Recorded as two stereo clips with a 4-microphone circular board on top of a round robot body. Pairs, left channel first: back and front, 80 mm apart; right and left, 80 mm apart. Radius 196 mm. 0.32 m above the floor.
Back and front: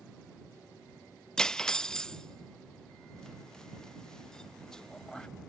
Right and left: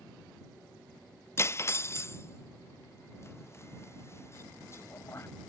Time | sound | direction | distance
1.4 | cutlery clinking | 105° right | ?